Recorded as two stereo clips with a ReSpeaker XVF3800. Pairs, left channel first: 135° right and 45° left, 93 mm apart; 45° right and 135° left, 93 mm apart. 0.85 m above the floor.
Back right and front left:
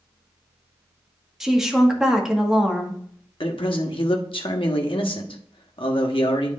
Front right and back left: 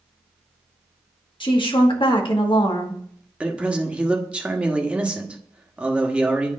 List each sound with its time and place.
1.4 s a woman speaking: 40° right, 1.4 m
3.4 s a man speaking: 150° right, 1.2 m